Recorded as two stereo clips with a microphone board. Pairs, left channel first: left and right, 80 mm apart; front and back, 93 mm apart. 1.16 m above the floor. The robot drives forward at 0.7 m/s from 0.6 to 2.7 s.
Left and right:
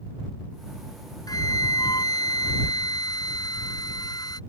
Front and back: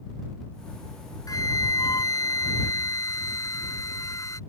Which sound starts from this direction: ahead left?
A flute, at 1.3 s.